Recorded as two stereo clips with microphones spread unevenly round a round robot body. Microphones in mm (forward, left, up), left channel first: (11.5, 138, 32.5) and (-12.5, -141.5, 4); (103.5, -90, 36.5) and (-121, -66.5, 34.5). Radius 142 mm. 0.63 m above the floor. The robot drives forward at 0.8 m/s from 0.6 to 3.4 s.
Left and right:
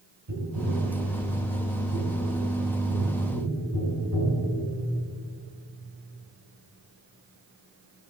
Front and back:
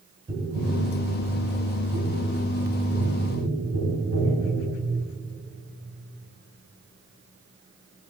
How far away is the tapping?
About 2.5 m.